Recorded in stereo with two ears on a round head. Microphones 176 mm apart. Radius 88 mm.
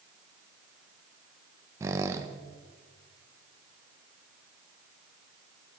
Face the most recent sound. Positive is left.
turn(degrees=-15)  # may be behind; listen again after turning